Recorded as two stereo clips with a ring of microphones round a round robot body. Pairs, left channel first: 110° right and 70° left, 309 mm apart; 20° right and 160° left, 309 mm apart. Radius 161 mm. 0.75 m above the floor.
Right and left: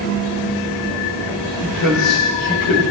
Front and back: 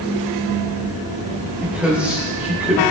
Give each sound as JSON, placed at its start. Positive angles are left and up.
{"t": 1.6, "sound": "a man speaking", "azimuth_deg": -115, "distance_m": 3.0}